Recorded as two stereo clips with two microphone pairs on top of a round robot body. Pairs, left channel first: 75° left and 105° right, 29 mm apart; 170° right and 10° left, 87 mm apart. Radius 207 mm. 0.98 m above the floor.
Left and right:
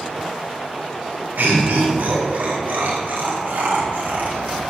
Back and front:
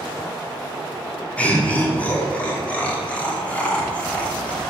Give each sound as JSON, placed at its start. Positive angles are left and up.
{"t": 1.4, "sound": "laughter", "azimuth_deg": -95, "distance_m": 2.5}